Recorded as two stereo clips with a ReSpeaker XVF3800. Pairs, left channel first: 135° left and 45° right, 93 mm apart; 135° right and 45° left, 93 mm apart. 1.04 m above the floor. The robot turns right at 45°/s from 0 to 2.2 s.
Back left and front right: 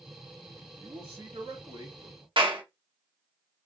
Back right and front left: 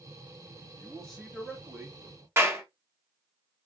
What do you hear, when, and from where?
0.8 s a man speaking: 65° right, 2.5 m; by 2.3 s straight ahead, 2.5 m
2.4 s a clap: 20° right, 1.5 m